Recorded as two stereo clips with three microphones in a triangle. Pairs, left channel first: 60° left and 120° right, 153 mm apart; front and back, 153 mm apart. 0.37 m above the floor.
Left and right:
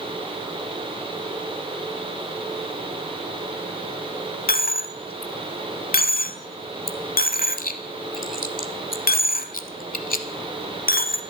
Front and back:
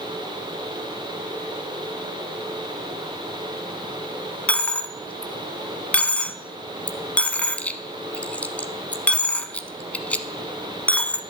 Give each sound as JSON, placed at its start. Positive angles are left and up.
{"t": 4.5, "sound": "a dropped coin", "azimuth_deg": 80, "distance_m": 0.8}